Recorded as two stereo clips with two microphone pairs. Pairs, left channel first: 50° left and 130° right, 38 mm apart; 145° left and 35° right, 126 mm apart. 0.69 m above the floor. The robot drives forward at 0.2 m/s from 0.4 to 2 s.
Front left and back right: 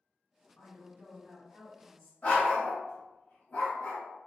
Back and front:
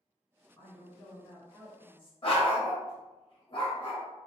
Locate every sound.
0.6 s a woman speaking: 100° left, 1.4 m; by 2.1 s 115° left, 1.4 m
2.2 s a dog barking: 105° left, 0.8 m